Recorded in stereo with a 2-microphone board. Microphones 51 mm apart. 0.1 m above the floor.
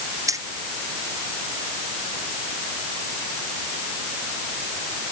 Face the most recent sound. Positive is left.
turn(degrees=-85)